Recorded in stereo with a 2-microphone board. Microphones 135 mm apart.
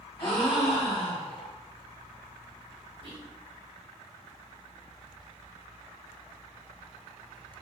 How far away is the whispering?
About 1.2 m.